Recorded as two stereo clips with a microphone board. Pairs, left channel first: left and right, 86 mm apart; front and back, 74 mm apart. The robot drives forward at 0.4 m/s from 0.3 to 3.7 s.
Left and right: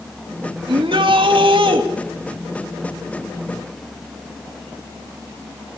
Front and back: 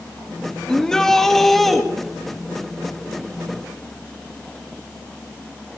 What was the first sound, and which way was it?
A shout, 80° right.